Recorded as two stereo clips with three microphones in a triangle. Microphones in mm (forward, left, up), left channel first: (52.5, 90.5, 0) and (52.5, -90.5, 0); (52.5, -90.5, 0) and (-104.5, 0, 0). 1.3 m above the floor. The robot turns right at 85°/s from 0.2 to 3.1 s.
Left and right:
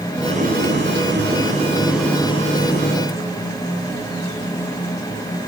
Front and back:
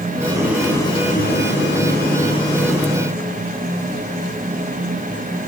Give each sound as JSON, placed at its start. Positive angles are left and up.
{"t": 0.2, "sound": "boiling", "azimuth_deg": -155, "distance_m": 9.5}